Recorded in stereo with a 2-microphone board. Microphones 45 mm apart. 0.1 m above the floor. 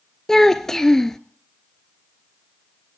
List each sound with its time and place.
0.3 s a child speaking: 10° left (ahead or behind), 0.8 m